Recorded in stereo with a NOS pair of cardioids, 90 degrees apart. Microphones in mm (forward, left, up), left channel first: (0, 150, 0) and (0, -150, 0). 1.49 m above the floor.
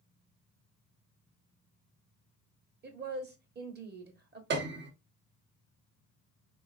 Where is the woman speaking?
35° right, 1.4 m.